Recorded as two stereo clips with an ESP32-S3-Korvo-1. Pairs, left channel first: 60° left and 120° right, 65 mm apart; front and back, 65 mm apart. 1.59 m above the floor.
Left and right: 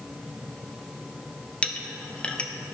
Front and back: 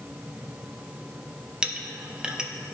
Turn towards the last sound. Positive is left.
turn(degrees=115)